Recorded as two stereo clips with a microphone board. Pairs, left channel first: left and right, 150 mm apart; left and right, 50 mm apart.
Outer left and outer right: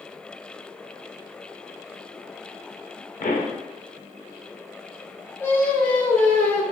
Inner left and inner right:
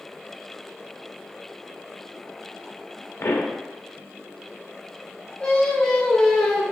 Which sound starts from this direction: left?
A pop, at 3.2 s.